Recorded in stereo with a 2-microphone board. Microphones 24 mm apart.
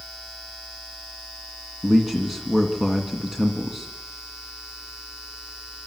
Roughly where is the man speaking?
Centre.